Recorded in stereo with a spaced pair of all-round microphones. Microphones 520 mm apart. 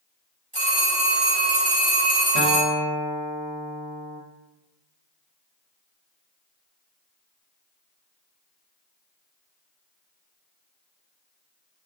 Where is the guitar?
60° left (ahead or behind), 0.6 m.